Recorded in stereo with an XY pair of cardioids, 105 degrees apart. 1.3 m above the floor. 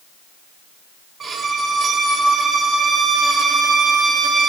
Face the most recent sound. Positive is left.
turn(degrees=-45)